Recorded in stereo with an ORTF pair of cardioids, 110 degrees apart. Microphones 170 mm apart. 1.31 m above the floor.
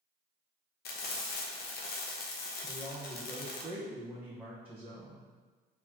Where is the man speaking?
10° right, 1.2 m.